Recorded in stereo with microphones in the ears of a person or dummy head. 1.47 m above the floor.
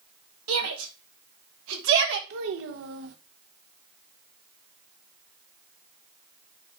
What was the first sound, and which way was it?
A shout, 85° right.